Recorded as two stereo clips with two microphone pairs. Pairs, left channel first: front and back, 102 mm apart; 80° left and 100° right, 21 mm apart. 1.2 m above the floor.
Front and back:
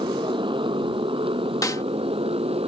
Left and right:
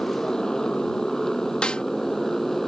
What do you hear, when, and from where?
0.0 s a motorcycle: 140° left; by 2.7 s 160° left
1.6 s a snare drum: 55° left